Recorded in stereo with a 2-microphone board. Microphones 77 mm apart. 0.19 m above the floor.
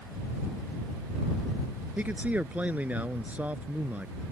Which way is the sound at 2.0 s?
20° right (ahead or behind).